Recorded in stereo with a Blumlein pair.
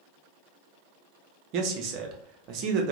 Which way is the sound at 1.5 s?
40° right.